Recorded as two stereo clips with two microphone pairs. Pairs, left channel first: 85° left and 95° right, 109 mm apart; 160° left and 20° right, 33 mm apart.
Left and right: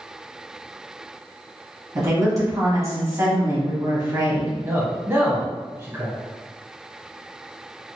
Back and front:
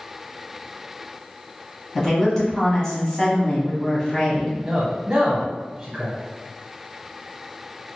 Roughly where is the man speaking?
Ahead right.